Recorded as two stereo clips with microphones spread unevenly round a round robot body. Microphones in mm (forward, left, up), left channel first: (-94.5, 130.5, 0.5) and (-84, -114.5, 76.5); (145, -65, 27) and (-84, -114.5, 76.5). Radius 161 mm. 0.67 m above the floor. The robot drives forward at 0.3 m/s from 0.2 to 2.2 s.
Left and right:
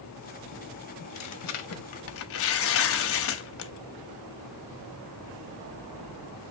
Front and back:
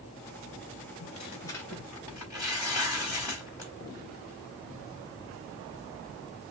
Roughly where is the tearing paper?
Left.